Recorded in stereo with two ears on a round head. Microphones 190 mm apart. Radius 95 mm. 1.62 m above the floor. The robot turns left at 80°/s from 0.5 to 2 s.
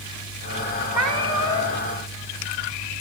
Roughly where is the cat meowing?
Behind.